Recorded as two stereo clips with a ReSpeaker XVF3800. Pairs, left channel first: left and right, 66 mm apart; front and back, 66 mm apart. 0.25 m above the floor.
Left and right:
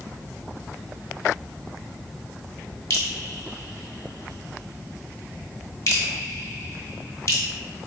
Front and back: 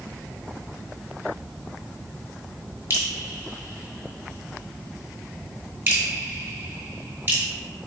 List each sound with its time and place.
2.9 s dripping: 120° left, 0.9 m